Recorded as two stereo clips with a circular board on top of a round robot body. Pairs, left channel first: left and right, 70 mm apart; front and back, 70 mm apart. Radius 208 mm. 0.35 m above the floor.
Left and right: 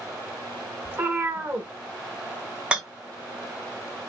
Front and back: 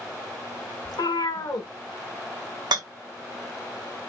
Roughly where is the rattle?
Behind.